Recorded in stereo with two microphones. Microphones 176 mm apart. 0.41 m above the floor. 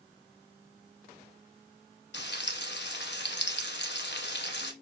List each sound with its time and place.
2.1 s frying: 80° left, 0.9 m